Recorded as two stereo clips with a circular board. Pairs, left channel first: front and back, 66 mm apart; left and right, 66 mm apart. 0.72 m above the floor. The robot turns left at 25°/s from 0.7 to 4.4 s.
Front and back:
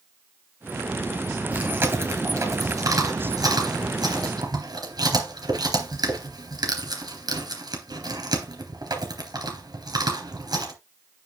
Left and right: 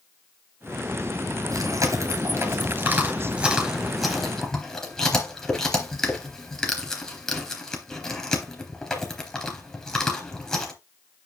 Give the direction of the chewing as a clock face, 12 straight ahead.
4 o'clock.